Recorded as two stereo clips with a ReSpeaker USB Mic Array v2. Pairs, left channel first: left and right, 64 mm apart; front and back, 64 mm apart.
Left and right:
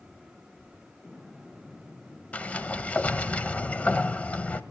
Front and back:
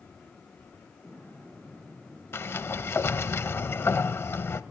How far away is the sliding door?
About 0.7 m.